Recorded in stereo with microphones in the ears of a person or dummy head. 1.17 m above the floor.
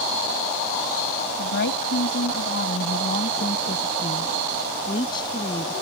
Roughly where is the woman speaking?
Left.